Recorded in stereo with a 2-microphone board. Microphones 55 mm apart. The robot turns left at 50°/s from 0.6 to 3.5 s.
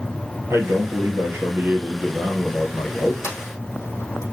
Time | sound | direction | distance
0.5 | a man speaking | 85° right | 2.5 m
3.2 | a sliding door | 70° left (ahead or behind) | 3.5 m